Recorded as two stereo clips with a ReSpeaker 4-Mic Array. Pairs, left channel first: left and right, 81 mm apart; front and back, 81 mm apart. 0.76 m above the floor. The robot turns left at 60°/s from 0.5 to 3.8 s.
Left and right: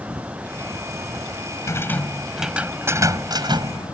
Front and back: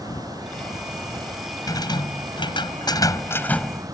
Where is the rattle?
40° left; by 4.0 s 90° right.